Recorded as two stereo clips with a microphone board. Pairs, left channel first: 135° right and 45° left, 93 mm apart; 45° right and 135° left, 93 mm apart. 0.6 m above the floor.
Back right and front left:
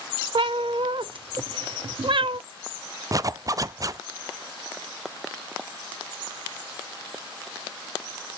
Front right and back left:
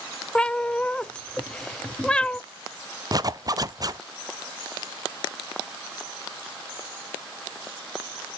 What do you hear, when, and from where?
0.3 s a cat meowing: 35° left, 0.5 m
3.1 s a zipper: 90° left, 0.5 m